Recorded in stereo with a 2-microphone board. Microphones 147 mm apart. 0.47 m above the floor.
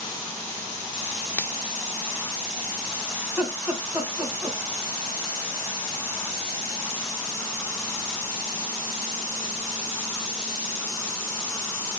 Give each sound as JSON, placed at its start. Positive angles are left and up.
{"t": 1.4, "sound": "a finger snap", "side_deg": 15, "distance_m": 0.5}
{"t": 3.2, "sound": "laughter", "side_deg": -5, "distance_m": 3.0}